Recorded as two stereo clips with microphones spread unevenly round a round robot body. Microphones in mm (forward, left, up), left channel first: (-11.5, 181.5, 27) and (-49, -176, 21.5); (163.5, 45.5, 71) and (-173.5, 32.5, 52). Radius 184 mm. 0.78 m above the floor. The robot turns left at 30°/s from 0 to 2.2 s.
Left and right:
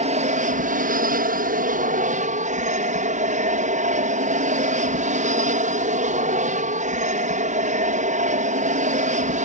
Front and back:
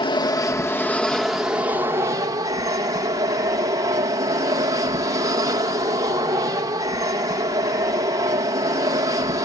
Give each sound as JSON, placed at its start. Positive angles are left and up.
{"t": 0.0, "sound": "an aircraft", "azimuth_deg": -55}